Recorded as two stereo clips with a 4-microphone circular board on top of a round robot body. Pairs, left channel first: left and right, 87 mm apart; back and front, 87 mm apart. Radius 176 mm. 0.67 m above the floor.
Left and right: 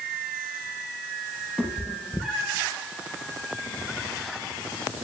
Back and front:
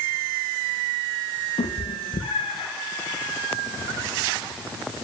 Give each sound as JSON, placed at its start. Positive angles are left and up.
{"t": 1.6, "sound": "a cat meowing", "azimuth_deg": -175, "distance_m": 5.0}